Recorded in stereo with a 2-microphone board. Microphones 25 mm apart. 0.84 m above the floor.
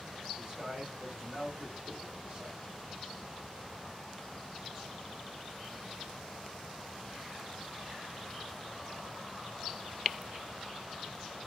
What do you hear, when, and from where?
0.4 s a man speaking: 30° right (ahead or behind), 1.9 m